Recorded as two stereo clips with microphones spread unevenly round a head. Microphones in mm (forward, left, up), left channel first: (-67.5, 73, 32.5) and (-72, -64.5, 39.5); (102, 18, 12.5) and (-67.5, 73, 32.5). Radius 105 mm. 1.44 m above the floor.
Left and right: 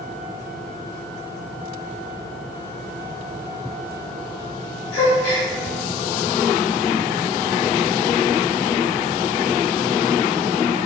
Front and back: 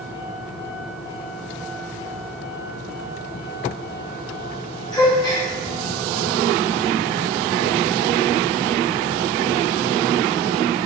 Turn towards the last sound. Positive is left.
turn(degrees=50)